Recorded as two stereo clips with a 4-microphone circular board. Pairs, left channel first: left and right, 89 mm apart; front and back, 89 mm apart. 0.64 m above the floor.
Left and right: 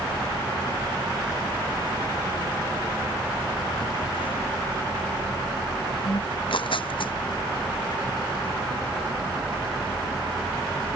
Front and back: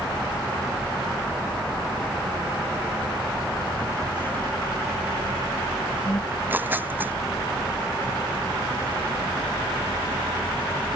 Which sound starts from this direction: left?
Tearing paper, at 6.3 s.